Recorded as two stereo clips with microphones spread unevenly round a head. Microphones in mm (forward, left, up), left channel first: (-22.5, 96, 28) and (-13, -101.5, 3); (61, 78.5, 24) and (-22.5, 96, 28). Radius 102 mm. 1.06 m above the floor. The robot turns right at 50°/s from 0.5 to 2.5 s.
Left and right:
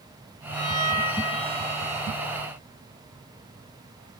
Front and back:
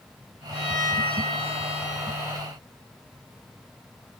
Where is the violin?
10° right, 8 m; by 2.4 s 85° left, 8 m.